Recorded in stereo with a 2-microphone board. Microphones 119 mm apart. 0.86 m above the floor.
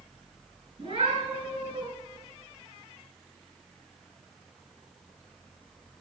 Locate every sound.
0.8 s a cat meowing: 40° right (ahead or behind), 7 m